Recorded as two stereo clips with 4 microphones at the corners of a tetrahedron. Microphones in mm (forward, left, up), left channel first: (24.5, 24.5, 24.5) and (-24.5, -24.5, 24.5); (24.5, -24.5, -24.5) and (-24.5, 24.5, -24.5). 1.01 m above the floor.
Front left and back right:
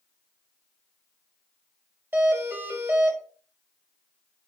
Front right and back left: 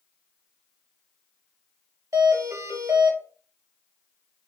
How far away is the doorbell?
About 1.2 m.